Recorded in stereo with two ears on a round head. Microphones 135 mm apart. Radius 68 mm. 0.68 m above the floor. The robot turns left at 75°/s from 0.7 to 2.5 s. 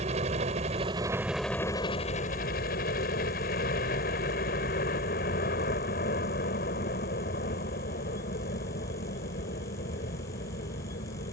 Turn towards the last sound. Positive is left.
turn(degrees=95)